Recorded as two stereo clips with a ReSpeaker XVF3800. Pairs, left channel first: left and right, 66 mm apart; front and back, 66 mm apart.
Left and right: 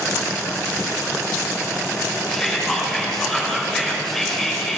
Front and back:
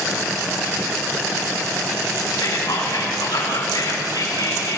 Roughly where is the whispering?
Ahead.